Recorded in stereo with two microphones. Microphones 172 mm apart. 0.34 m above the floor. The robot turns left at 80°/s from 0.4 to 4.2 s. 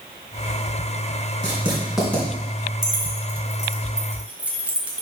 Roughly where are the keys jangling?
Right.